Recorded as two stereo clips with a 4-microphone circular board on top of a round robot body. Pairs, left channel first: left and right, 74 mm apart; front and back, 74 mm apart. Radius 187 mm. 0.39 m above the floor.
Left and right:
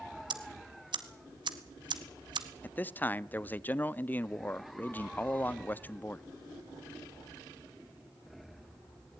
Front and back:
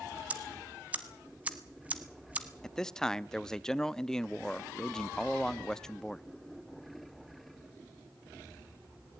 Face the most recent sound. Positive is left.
turn(degrees=70)